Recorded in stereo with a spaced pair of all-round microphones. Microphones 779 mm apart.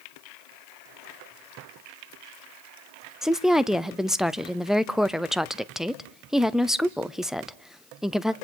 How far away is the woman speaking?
About 0.5 m.